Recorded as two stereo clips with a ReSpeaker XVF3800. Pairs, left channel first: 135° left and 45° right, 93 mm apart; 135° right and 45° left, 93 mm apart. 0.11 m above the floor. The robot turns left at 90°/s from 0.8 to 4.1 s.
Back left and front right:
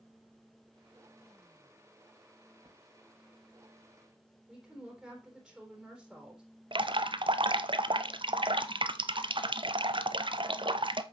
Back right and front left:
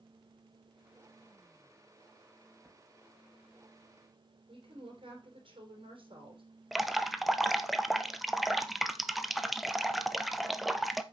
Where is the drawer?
35° right, 2.5 m; by 2.8 s 50° right, 2.5 m.